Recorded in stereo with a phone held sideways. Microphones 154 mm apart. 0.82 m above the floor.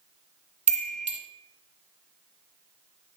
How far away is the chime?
About 0.7 m.